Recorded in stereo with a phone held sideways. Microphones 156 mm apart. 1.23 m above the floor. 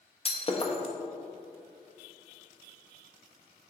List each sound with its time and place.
0.2 s breaking glass: 40° left (ahead or behind), 0.7 m